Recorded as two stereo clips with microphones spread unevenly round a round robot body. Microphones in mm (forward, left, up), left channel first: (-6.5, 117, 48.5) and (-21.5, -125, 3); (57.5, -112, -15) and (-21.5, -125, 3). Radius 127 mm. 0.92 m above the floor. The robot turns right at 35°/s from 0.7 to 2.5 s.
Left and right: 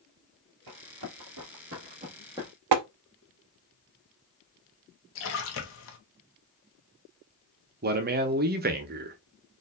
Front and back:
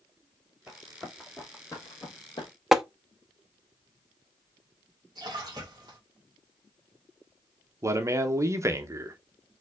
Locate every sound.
0.7 s running footsteps: 95° right, 2 m; by 2.5 s straight ahead, 1.4 m
2.7 s tapping: 90° right, 0.5 m
5.2 s a splash: 125° left, 0.9 m
7.8 s a man speaking: 115° right, 0.8 m